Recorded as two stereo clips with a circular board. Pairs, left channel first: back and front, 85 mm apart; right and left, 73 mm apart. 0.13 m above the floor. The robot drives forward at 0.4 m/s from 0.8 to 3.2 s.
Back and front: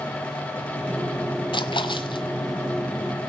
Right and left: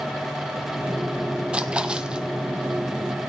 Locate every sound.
1.5 s a splash: 165° left, 1.0 m; by 2.2 s 170° left, 1.3 m